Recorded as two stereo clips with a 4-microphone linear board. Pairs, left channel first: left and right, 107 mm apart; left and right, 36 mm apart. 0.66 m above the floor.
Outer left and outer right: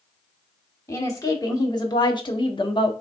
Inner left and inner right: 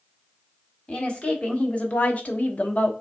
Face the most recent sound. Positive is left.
turn(degrees=50)  # may be behind; listen again after turning